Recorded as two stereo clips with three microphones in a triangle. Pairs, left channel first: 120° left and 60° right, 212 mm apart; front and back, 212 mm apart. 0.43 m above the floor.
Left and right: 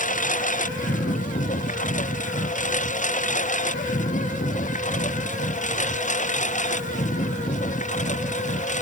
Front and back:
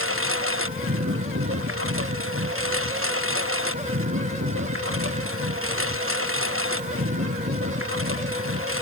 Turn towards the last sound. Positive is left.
turn(degrees=175)